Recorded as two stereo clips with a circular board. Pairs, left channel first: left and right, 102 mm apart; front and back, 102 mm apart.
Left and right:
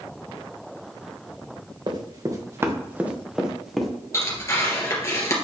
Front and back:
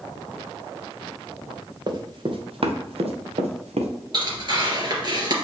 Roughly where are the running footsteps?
Behind right.